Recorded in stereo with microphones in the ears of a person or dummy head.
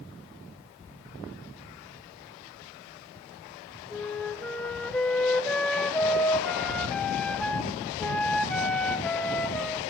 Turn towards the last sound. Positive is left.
turn(degrees=5)  # may be behind; listen again after turning